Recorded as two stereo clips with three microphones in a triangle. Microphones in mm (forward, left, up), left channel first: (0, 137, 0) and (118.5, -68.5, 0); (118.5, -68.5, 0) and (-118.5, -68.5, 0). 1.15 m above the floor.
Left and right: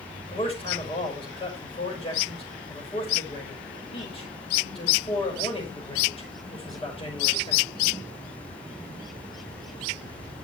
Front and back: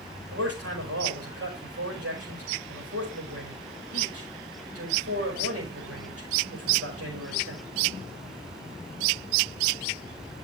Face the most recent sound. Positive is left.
turn(degrees=-175)